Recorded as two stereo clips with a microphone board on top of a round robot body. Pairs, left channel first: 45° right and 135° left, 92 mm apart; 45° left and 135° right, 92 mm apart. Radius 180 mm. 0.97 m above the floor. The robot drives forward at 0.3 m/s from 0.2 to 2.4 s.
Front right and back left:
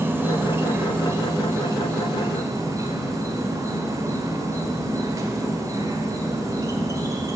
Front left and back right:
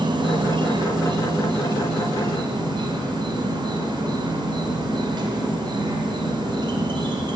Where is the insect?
160° right, 0.9 m; by 7.4 s 170° right, 1.5 m.